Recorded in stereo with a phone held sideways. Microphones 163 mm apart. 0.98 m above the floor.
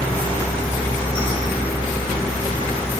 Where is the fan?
10° left (ahead or behind), 9.5 m.